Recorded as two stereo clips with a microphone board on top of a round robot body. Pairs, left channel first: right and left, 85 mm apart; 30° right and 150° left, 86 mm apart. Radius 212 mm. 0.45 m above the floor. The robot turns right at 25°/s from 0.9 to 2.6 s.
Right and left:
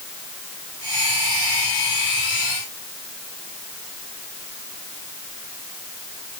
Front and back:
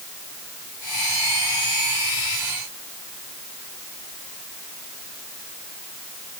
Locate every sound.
Only background noise.